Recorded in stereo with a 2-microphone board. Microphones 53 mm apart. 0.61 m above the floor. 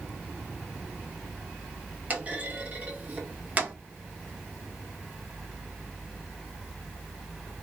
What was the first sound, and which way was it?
A clunk, 30° right (ahead or behind).